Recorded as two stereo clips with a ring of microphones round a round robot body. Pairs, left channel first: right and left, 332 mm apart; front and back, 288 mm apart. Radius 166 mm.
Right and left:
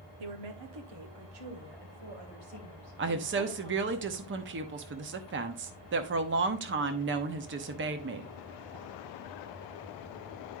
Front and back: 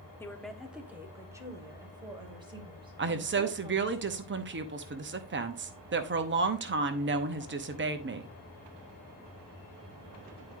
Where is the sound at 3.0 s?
140° left, 0.9 m.